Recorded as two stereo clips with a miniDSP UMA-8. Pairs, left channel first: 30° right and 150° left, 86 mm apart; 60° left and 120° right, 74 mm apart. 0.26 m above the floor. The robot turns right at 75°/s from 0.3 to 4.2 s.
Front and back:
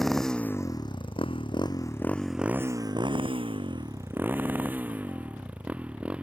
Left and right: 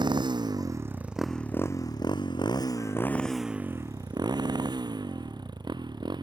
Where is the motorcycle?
120° right; by 6.2 s 135° right.